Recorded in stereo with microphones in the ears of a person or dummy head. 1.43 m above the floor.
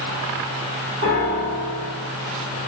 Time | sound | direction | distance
1.0 | a piano | 55° right (ahead or behind) | 1.5 m